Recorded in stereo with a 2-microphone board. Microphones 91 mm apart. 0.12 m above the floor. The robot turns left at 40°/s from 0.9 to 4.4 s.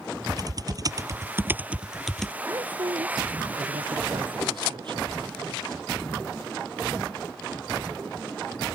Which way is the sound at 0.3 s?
45° right (ahead or behind).